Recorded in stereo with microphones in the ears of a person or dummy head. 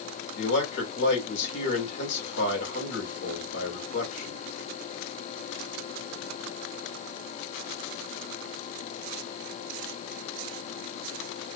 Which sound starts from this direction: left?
A man speaking, at 0.4 s.